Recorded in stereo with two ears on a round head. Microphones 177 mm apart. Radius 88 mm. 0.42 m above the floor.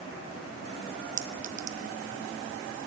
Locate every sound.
1.2 s a clink: 40° right (ahead or behind), 0.7 m